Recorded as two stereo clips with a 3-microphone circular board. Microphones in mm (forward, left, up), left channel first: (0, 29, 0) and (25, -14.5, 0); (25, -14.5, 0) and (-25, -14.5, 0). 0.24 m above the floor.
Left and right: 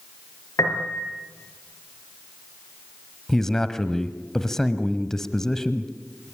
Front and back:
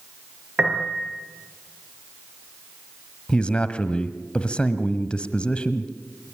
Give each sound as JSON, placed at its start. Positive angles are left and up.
{"t": 0.6, "sound": "a piano", "azimuth_deg": 105, "distance_m": 4.0}
{"t": 3.3, "sound": "a man speaking", "azimuth_deg": 45, "distance_m": 1.2}